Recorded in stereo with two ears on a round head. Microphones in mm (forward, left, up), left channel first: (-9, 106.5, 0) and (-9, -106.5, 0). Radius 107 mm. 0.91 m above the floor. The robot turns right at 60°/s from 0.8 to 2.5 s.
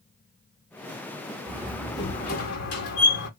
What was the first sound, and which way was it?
A door slam, 15° right.